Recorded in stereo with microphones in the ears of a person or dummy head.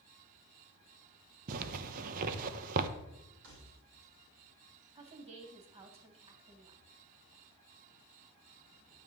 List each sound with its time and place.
1.5 s a zipper: 50° right (ahead or behind), 0.9 m
3.4 s keys jangling: 60° right (ahead or behind), 5.5 m
5.0 s a woman speaking: 30° right (ahead or behind), 2 m